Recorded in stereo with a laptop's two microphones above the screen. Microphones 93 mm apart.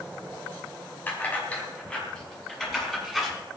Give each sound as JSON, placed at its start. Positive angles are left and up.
{"t": 1.1, "sound": "keys jangling", "side_deg": 20, "distance_m": 5.0}